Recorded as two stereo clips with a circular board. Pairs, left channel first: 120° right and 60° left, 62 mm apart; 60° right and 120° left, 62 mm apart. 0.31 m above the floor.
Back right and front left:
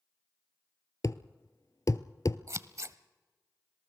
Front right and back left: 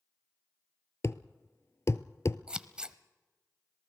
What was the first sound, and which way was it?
A thud, 100° right.